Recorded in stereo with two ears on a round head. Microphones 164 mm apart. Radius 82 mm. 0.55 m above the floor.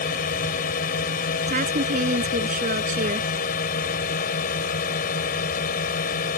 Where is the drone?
50° left (ahead or behind).